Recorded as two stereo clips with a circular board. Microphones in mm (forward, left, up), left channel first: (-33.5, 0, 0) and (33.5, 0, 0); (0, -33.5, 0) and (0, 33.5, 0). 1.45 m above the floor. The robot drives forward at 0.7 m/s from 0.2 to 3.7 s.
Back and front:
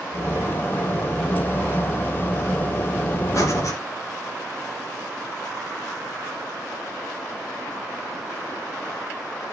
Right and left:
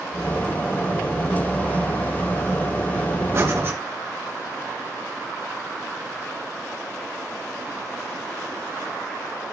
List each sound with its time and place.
3.3 s breathing: 135° left, 3 m; by 3.8 s 140° left, 3 m